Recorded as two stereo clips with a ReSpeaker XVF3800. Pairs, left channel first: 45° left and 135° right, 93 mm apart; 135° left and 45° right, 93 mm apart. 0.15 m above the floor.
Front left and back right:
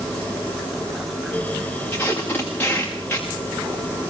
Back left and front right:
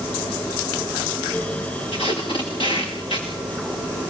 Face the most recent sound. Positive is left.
turn(degrees=115)